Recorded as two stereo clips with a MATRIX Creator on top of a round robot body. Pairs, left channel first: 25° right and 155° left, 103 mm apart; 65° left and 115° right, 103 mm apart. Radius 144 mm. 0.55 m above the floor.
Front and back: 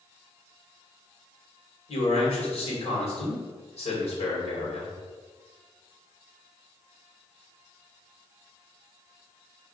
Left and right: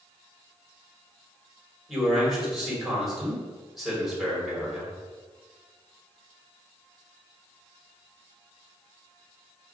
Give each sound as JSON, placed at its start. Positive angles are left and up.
{"t": 1.9, "sound": "a man speaking", "azimuth_deg": -20, "distance_m": 2.5}